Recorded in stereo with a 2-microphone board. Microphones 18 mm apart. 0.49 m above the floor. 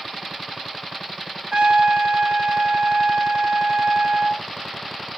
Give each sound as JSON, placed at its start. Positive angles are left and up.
{"t": 1.5, "sound": "a trumpet", "side_deg": -60, "distance_m": 1.0}